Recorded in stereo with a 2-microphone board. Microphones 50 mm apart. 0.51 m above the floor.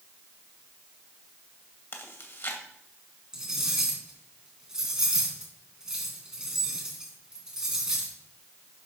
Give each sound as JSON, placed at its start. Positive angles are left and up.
{"t": 1.9, "sound": "chewing", "side_deg": 50, "distance_m": 2.0}
{"t": 3.3, "sound": "cutlery clinking", "side_deg": -10, "distance_m": 3.5}